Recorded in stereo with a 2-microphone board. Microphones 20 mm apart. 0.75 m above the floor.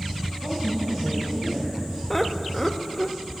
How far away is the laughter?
About 0.5 m.